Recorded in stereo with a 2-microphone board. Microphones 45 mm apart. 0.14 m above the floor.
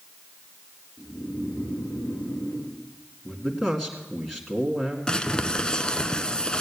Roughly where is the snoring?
Left.